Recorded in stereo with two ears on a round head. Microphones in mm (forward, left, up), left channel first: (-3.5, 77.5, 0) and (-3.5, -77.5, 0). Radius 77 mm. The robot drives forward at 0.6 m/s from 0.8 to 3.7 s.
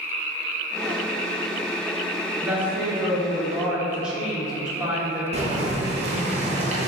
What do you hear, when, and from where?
2.4 s a woman speaking: 10° right (ahead or behind), 0.9 m; by 5.2 s 5° right (ahead or behind), 1.6 m
5.3 s boiling: 35° right (ahead or behind), 0.6 m